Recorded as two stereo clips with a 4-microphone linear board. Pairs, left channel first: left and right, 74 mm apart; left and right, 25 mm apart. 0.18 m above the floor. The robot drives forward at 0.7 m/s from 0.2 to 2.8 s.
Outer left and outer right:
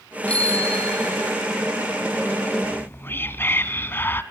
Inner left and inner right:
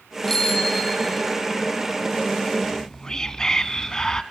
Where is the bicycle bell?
15° left (ahead or behind), 5 m; by 1.4 s 20° left (ahead or behind), 4 m.